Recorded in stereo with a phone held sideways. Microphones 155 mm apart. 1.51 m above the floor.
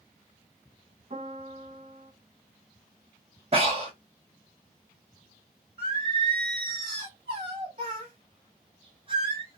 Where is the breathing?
40° right (ahead or behind), 1.0 m.